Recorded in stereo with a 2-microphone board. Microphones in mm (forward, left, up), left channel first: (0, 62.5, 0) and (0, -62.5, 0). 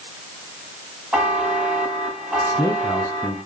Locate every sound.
1.1 s a buzzer: 10° right (ahead or behind), 6.5 m
2.4 s a man speaking: 25° left (ahead or behind), 1.1 m